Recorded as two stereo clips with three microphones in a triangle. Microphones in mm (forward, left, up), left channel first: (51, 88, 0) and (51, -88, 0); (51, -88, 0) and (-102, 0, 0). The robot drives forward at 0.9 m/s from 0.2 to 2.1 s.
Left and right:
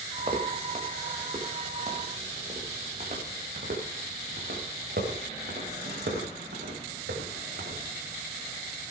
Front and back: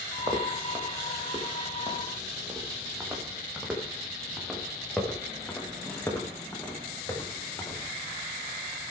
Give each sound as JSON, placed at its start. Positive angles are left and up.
{"t": 0.2, "sound": "footsteps", "azimuth_deg": -145, "distance_m": 3.0}